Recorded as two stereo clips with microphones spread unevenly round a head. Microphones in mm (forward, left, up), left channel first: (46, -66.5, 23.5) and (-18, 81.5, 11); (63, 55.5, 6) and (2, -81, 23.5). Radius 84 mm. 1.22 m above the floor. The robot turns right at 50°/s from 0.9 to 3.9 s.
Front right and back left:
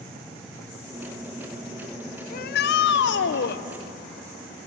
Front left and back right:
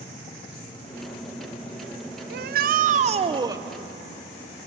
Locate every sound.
2.3 s a shout: 105° right, 0.6 m; by 3.6 s 40° right, 0.6 m